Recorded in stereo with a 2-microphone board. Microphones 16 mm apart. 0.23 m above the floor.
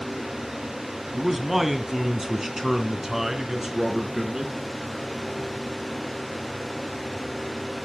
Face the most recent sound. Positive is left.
turn(degrees=-30)  # may be behind; listen again after turning